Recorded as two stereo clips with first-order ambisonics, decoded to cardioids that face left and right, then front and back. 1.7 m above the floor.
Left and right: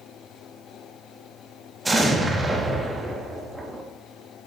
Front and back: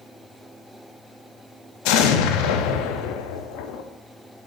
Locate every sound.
1.9 s an explosion: 10° right, 0.7 m